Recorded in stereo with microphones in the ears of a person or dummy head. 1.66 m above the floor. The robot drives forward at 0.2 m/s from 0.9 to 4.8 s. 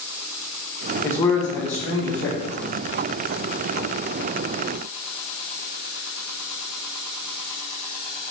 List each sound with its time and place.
1.0 s a man speaking: 15° left (ahead or behind), 0.9 m; by 2.8 s 10° left (ahead or behind), 1.2 m